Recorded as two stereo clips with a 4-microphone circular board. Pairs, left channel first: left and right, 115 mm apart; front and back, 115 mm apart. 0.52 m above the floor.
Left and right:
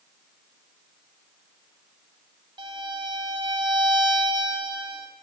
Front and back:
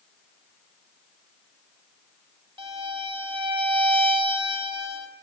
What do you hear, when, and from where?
2.6 s a violin: 140° right, 9.5 m